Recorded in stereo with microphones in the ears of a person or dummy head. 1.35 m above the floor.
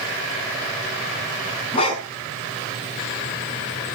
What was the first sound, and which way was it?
A dog barking, 35° left (ahead or behind).